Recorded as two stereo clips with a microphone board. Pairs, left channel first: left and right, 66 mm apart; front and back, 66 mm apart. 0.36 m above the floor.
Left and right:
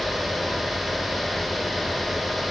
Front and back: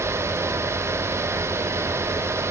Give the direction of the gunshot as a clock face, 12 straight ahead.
No gunshot in this recording.